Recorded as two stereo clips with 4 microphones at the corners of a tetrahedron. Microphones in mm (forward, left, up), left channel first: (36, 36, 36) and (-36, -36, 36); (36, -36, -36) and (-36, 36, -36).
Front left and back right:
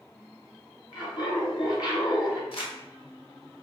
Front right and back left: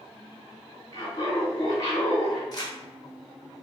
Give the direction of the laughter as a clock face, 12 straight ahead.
12 o'clock.